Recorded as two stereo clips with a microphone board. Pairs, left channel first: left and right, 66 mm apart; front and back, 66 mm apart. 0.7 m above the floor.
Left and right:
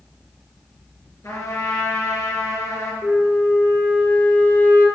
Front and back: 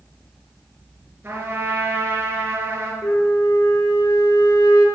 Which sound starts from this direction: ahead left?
A flute, at 3.0 s.